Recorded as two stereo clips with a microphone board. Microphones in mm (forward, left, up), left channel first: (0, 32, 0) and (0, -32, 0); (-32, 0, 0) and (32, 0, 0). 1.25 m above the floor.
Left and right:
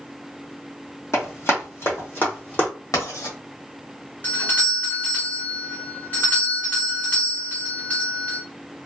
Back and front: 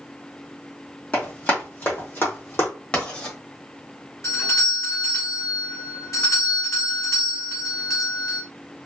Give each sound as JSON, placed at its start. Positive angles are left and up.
{"t": 1.1, "sound": "running footsteps", "azimuth_deg": 120, "distance_m": 2.0}
{"t": 2.9, "sound": "writing", "azimuth_deg": 110, "distance_m": 1.4}
{"t": 4.2, "sound": "a doorbell", "azimuth_deg": 150, "distance_m": 1.8}